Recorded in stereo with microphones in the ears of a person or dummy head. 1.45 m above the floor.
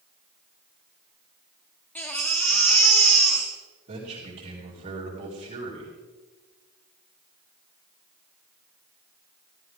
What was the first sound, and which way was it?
A baby crying, 5° left (ahead or behind).